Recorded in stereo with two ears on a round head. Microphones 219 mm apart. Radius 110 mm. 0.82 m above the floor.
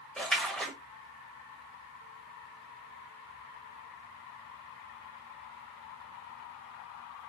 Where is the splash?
5° left (ahead or behind), 1.2 m.